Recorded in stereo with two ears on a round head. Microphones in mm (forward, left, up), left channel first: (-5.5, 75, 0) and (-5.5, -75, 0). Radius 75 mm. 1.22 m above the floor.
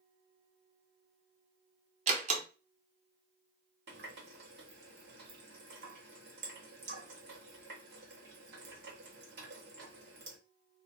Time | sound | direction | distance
2.1 | a door slam | 45° right (ahead or behind) | 0.7 m
3.9 | a running tap | 70° right (ahead or behind) | 1.2 m